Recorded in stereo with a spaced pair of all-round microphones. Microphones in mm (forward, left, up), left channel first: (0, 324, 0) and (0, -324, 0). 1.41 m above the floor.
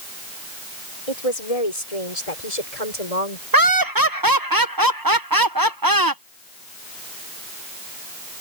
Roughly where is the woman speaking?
Left.